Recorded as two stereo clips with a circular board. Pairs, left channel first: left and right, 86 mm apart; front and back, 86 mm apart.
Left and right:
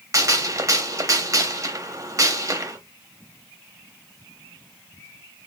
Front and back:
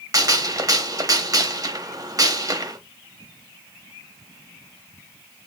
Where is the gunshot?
135° right, 0.8 m.